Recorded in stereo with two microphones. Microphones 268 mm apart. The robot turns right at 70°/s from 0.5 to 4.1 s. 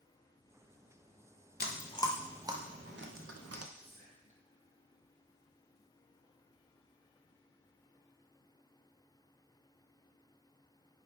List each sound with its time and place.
1.6 s chewing: 40° left (ahead or behind), 0.5 m; by 3.7 s 60° right (ahead or behind), 0.5 m
3.8 s whispering: 45° right (ahead or behind), 0.9 m; by 4.5 s 25° right (ahead or behind), 0.9 m